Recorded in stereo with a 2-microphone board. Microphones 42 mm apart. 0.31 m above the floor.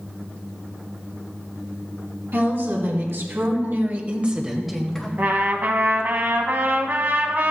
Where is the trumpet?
50° right (ahead or behind), 1.1 m.